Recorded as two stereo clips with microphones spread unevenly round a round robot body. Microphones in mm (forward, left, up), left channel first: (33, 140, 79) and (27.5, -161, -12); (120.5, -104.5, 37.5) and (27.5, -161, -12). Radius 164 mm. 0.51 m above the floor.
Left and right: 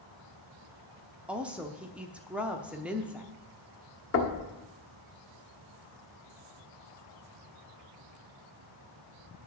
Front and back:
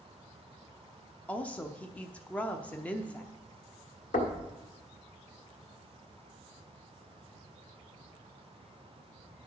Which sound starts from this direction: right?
A woman speaking, at 1.3 s.